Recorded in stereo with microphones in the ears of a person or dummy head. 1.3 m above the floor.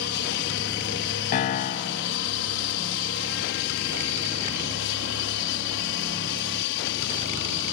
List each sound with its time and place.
0.0 s an aircraft: 55° left (ahead or behind); by 7.7 s 60° left (ahead or behind)
1.3 s a piano: 30° left (ahead or behind)